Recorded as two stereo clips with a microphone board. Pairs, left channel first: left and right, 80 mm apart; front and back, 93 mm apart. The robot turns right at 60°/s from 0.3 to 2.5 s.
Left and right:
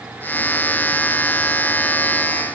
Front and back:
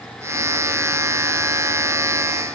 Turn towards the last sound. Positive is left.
No sound to turn to.